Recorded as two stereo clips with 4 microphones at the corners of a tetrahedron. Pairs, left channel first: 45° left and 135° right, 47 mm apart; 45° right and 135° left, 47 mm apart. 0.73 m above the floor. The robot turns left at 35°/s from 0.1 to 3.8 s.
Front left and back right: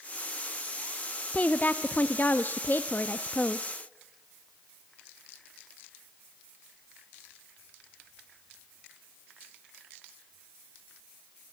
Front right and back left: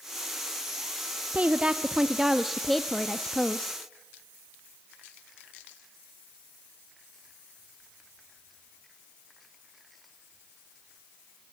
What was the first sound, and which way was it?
A woman speaking, 90° left.